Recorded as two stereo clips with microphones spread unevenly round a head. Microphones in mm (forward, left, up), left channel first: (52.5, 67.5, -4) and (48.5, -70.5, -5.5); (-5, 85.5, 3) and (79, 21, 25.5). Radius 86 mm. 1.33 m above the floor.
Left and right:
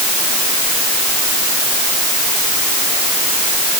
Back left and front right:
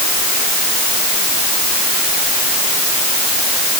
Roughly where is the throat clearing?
No throat clearing in this recording.